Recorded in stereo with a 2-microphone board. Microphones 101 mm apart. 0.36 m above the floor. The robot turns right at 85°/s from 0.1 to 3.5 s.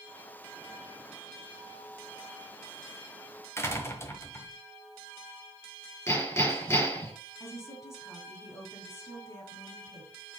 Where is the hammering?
25° left (ahead or behind), 5.5 m.